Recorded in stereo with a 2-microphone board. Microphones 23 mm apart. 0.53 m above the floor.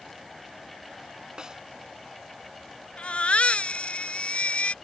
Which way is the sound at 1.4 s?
30° right (ahead or behind).